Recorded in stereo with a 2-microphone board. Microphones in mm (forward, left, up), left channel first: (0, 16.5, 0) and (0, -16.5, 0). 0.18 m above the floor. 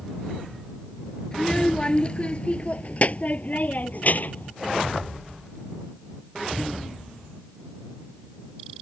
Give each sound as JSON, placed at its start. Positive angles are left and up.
{"t": 1.3, "sound": "a child speaking", "side_deg": 15}